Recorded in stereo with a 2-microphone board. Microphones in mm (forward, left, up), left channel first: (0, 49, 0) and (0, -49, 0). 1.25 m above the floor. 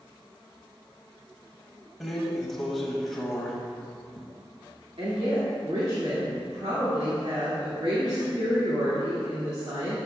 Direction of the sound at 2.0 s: Centre (ahead or behind).